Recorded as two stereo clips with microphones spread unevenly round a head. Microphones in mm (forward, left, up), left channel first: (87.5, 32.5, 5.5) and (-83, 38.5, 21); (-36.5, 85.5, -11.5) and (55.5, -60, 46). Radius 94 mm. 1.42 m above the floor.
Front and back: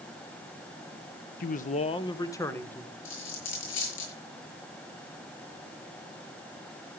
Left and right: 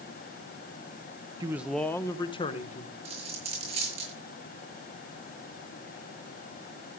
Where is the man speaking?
20° left, 0.8 m; by 3.0 s 80° left, 1.6 m.